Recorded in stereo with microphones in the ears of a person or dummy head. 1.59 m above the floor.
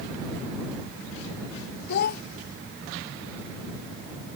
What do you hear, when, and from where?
1.9 s a child speaking: 50° left (ahead or behind)